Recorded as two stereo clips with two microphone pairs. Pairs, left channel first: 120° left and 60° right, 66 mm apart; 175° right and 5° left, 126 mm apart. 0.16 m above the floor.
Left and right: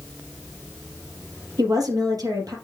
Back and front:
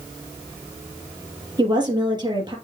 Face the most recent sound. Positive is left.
turn(degrees=-50)